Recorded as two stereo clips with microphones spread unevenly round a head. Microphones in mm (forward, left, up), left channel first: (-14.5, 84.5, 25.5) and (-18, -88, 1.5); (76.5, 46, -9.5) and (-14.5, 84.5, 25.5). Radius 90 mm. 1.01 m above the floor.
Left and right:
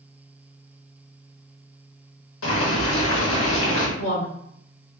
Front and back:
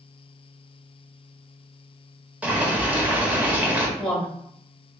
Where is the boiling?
80° left, 1.3 m.